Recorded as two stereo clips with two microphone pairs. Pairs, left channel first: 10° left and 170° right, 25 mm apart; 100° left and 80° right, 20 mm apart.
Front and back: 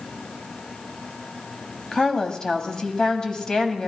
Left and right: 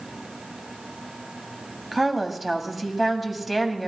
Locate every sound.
1.9 s a woman speaking: straight ahead, 1.6 m